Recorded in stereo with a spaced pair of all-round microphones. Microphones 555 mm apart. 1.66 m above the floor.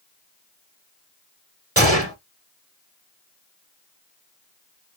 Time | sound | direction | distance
1.8 | a gunshot | 25° right (ahead or behind) | 1.0 m